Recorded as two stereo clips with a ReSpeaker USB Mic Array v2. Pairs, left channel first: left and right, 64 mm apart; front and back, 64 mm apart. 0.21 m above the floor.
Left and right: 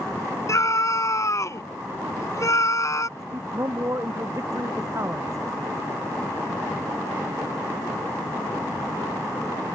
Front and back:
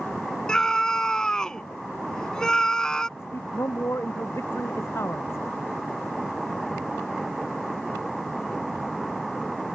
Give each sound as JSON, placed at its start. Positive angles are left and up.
{"t": 0.5, "sound": "a scream", "azimuth_deg": 80}
{"t": 3.2, "sound": "a man speaking", "azimuth_deg": -45}